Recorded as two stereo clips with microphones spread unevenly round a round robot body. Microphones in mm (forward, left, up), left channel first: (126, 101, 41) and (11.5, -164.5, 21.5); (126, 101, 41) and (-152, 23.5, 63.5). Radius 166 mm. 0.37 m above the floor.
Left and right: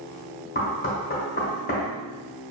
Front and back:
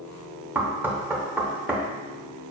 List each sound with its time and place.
0.6 s knocking: 110° left, 0.8 m